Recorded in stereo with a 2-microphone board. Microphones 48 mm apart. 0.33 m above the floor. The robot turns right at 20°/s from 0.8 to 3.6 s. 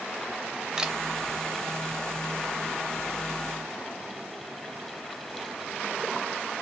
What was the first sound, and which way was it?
A camera shutter, 15° right (ahead or behind).